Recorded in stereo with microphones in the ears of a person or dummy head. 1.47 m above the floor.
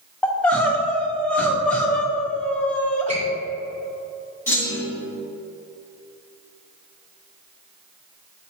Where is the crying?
10° left (ahead or behind), 0.6 m.